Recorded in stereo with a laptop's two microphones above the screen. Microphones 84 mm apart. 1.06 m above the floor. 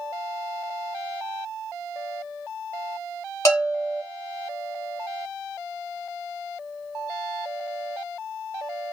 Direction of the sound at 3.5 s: 35° left (ahead or behind).